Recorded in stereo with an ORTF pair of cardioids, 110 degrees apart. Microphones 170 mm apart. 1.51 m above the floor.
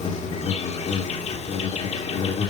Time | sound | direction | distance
0.0 | an insect | 45° left | 2 m